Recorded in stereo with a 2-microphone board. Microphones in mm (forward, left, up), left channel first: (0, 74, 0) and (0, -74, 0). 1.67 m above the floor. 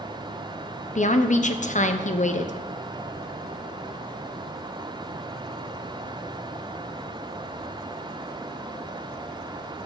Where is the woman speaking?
55° left (ahead or behind), 0.6 m.